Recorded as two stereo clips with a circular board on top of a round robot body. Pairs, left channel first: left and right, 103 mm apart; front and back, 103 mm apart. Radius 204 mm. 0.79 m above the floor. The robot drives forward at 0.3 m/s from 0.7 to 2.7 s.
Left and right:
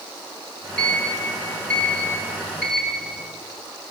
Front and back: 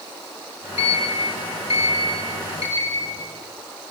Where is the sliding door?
10° left, 6 m; by 3.3 s 15° left, 5.5 m.